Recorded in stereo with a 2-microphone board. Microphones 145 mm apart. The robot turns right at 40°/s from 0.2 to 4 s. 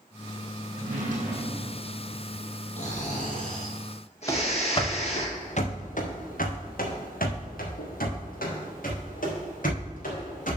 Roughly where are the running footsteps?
Left.